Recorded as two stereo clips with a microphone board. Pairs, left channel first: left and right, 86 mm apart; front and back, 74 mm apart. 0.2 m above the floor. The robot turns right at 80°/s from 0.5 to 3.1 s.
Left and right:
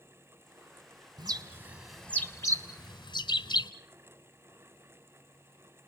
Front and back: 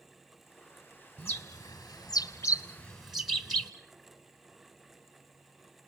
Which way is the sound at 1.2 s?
60° right.